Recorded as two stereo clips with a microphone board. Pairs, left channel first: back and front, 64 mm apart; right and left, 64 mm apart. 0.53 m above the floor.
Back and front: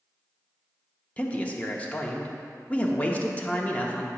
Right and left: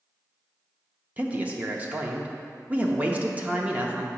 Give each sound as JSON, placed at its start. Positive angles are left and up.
{"t": 1.2, "sound": "a man speaking", "azimuth_deg": 135, "distance_m": 0.7}